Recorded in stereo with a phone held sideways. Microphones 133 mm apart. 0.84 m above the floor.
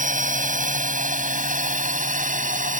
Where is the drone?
75° right (ahead or behind).